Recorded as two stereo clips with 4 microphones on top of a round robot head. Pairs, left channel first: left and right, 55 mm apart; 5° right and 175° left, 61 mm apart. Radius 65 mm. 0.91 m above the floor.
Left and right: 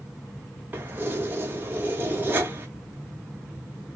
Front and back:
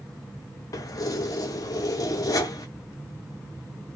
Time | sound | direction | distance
0.7 | keys jangling | 30° right | 0.8 m